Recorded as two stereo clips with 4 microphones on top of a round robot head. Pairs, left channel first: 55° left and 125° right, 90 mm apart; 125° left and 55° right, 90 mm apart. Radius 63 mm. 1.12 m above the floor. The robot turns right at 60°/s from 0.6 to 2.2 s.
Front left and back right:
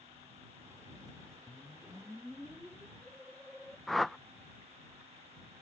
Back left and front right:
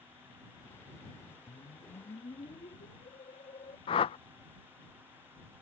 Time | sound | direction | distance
1.5 | a whoosh | 100° left | ?
3.9 | a whoosh | 145° left | ?